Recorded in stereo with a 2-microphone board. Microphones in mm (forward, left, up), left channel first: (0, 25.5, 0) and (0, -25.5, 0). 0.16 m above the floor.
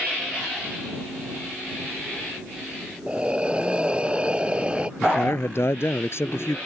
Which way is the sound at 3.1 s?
20° right (ahead or behind).